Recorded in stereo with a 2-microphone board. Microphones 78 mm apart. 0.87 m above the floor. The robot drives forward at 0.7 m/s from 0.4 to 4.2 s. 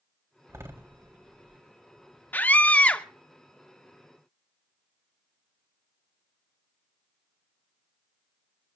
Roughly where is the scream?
Left.